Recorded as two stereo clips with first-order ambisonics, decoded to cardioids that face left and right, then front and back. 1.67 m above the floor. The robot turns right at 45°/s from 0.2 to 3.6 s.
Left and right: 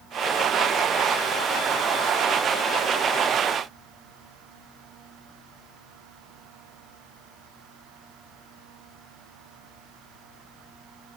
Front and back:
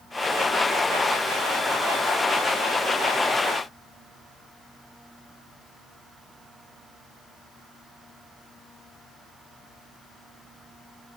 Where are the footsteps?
No footsteps in this recording.